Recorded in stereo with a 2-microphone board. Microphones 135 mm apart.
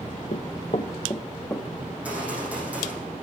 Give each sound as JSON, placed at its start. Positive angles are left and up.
{"t": 0.3, "sound": "running footsteps", "side_deg": 70, "distance_m": 0.9}
{"t": 1.9, "sound": "a gunshot", "side_deg": -10, "distance_m": 6.5}